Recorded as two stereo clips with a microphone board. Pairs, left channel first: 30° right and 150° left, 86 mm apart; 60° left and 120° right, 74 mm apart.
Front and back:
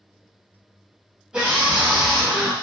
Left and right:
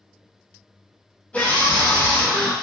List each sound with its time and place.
1.3 s a scream: 95° left, 1.5 m